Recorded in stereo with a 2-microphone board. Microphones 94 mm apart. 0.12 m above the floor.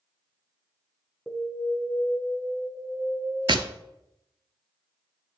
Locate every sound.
1.3 s an alarm: centre (ahead or behind), 1.1 m
3.5 s tapping: 60° right (ahead or behind), 0.6 m